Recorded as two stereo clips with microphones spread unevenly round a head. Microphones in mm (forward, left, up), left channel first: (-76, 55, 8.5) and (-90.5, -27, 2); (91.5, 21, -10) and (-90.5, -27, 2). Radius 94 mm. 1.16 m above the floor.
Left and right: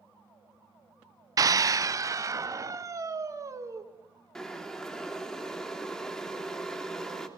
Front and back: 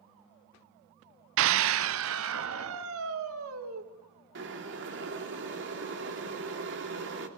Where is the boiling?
165° left, 3.5 m.